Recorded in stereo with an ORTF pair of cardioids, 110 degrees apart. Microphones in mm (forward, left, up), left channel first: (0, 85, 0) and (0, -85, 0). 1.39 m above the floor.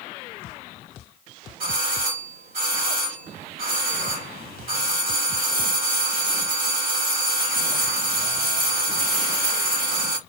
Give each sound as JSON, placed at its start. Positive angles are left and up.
{"t": 1.6, "sound": "a doorbell", "azimuth_deg": -55, "distance_m": 2.5}